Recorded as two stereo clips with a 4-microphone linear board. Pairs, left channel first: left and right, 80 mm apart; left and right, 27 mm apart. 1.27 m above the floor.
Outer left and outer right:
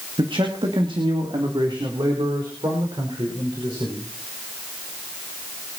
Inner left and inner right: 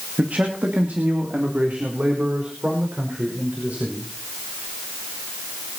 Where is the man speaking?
80° right, 2 m; by 4.1 s 70° right (ahead or behind), 6.5 m.